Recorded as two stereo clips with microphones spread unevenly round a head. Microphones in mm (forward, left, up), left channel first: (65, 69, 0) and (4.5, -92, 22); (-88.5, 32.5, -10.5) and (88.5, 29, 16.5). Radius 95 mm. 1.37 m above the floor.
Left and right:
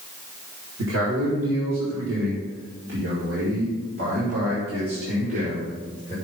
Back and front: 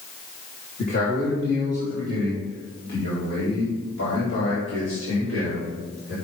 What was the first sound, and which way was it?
A man speaking, 130° right.